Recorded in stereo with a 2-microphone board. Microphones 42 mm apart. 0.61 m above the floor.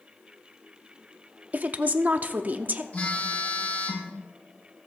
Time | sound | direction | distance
1.5 | a woman speaking | 40° right (ahead or behind) | 0.8 m
2.9 | a phone buzzing | 40° left (ahead or behind) | 3 m